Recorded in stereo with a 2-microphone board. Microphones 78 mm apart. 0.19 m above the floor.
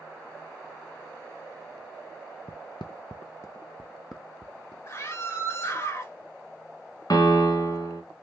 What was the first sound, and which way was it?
Footsteps, 80° left.